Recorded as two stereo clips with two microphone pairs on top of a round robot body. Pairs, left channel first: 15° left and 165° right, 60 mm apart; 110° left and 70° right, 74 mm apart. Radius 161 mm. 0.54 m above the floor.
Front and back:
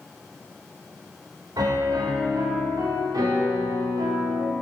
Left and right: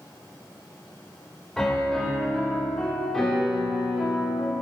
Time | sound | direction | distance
1.6 | a piano | 165° right | 1.8 m